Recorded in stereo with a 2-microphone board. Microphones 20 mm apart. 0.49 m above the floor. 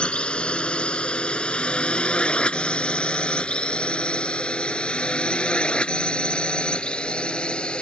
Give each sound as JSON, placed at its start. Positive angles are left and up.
{"t": 0.0, "sound": "a drone", "side_deg": 60}